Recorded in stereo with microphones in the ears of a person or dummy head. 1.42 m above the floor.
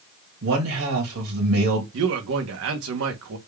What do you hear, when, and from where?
0.4 s a man speaking: 80° right, 2 m
1.9 s a man speaking: 70° right (ahead or behind), 1.1 m